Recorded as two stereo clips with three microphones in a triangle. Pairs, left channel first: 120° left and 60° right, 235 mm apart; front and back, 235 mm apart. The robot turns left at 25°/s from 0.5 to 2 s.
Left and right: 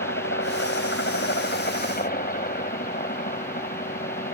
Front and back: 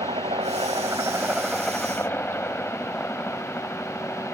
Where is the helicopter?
120° left; by 4.3 s 80° left.